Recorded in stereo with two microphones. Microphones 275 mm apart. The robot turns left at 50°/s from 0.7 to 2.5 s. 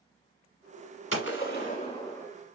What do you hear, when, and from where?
1.1 s a gunshot: 65° left, 1.1 m; by 2.3 s 5° left, 1.1 m